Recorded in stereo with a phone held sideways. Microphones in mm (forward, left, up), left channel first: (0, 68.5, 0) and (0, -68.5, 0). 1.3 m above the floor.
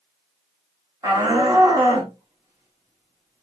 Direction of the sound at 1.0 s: 25° right (ahead or behind).